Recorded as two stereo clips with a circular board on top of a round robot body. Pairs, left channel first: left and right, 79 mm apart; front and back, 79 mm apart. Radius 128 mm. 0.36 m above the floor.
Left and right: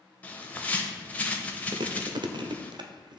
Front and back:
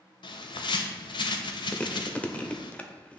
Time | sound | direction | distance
0.2 | a bird | 20° left | 0.8 m
1.7 | chewing | 75° right | 0.7 m